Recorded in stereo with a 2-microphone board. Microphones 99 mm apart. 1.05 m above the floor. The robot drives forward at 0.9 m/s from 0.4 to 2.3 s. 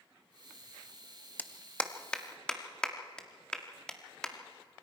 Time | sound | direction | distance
1.4 | a clap | 20° left (ahead or behind) | 0.7 m